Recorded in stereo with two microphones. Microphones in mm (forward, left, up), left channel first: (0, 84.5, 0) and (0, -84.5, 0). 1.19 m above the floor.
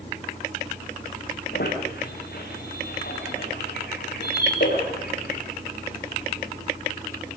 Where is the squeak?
80° left, 10 m.